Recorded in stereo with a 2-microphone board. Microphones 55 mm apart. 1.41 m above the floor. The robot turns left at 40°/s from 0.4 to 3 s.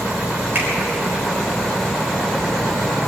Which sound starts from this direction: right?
A finger snap, at 0.6 s.